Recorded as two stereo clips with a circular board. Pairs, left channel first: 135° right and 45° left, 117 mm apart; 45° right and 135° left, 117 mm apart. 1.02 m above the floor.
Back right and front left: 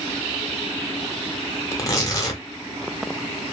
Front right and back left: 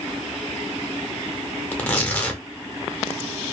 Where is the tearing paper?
115° right, 0.8 m.